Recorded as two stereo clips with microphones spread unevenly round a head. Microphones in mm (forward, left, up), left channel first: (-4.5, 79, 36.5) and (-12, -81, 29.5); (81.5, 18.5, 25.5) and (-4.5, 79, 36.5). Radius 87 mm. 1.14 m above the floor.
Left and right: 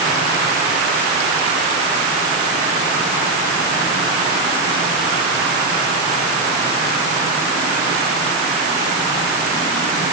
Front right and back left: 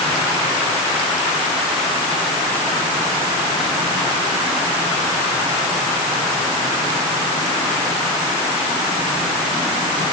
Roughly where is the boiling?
No boiling in this recording.